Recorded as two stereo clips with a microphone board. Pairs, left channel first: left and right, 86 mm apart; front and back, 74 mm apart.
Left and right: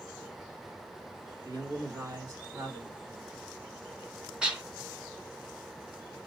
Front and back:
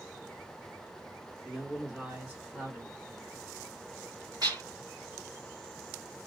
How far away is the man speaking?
About 1.6 m.